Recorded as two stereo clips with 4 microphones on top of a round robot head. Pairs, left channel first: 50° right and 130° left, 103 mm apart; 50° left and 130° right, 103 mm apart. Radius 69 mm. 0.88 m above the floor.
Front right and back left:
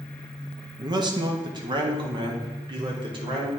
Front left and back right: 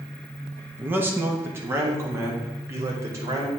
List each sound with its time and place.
0.8 s a man speaking: 160° left, 1.1 m; by 3.5 s 170° left, 2.5 m